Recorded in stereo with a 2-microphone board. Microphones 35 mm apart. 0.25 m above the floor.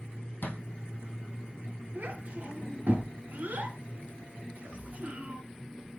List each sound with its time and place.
0.4 s a thud: 80° left, 2.5 m
1.9 s a child speaking: 75° right (ahead or behind), 2.5 m